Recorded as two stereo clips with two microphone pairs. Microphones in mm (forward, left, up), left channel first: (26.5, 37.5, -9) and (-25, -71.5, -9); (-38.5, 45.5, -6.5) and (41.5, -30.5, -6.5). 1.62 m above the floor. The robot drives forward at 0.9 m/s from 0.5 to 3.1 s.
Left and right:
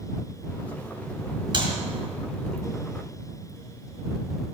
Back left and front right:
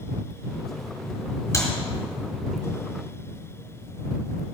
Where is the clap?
160° right, 3 m.